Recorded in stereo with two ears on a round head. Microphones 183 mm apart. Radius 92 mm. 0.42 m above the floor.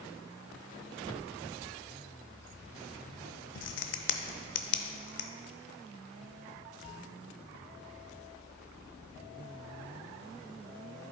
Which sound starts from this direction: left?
A crack, at 3.5 s.